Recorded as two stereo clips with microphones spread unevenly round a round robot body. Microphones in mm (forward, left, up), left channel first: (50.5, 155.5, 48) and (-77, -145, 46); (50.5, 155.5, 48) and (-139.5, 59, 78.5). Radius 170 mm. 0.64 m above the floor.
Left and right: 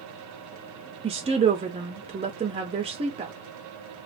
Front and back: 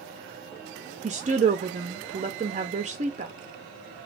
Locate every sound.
1.0 s a woman speaking: 155° right, 0.5 m